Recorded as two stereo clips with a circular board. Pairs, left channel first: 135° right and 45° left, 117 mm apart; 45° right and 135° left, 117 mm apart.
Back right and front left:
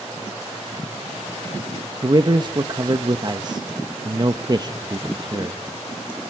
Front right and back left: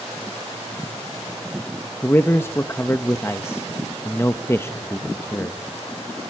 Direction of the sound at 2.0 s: 15° left.